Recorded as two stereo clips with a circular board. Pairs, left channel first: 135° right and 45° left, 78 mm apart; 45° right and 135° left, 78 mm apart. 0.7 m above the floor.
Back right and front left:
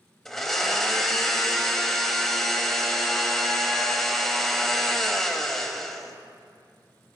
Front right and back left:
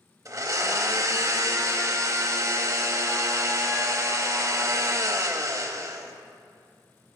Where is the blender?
140° left, 0.6 m.